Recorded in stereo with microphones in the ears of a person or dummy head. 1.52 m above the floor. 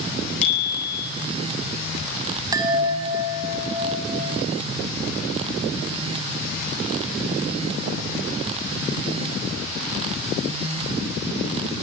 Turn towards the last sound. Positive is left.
turn(degrees=-20)  # may be behind; listen again after turning